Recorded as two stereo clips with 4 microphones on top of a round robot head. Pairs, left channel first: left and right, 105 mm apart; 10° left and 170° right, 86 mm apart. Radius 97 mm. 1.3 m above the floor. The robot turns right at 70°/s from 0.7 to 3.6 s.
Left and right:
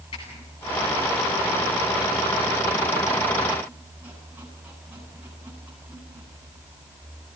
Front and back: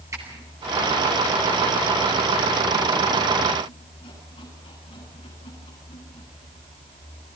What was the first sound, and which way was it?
A squeak, 140° left.